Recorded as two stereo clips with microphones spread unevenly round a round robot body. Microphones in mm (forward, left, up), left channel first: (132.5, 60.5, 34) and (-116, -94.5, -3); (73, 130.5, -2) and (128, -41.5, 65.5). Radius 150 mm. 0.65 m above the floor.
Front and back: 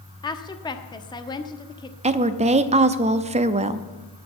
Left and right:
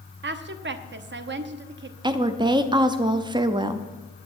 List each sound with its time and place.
0.2 s a woman speaking: 45° right, 1.1 m
2.0 s a woman speaking: 155° right, 0.6 m